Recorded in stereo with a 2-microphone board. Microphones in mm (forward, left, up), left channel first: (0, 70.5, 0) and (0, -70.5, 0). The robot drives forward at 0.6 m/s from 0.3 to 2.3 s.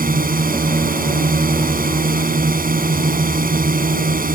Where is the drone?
80° right.